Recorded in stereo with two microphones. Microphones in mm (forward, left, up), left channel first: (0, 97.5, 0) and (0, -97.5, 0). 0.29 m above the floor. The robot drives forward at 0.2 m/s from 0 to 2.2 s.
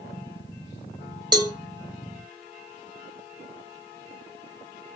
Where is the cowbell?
25° right (ahead or behind), 1.2 m.